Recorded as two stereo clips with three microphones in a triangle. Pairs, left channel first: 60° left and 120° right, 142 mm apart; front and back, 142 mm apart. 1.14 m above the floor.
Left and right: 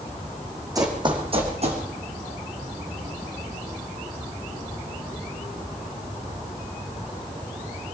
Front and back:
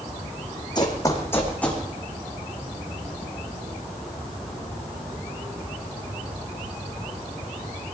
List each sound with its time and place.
0.8 s running footsteps: 55° right, 3 m; by 1.8 s 85° right, 3 m